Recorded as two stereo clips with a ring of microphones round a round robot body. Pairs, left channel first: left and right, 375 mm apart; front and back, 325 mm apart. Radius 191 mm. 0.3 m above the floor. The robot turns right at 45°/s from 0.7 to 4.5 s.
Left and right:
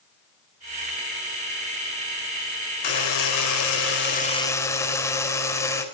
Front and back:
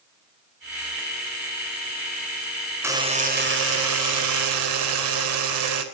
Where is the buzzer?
100° left, 4.5 m; by 5.8 s 170° left, 4.5 m.